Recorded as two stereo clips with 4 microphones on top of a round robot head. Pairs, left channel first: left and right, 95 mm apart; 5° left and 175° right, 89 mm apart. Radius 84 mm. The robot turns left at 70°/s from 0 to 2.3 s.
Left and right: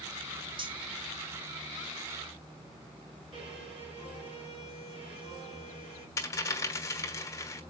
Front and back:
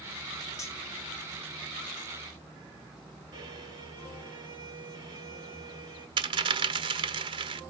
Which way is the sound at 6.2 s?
155° left.